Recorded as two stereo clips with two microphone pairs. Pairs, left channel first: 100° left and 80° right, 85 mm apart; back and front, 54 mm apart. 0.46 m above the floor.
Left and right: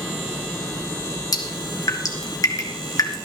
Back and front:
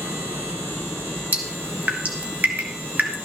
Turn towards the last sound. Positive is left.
turn(degrees=55)